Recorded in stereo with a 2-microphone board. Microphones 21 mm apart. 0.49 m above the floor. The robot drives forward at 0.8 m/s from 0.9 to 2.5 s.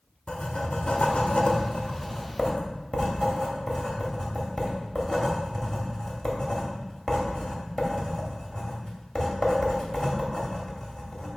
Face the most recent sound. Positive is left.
turn(degrees=30)  # may be behind; listen again after turning